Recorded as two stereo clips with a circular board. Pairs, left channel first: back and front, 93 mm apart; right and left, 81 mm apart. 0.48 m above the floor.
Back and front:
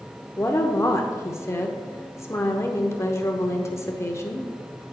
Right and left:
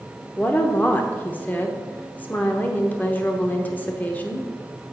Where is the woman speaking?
145° right, 0.9 m.